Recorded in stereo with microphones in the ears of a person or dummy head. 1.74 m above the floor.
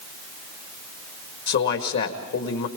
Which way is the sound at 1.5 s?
60° left (ahead or behind).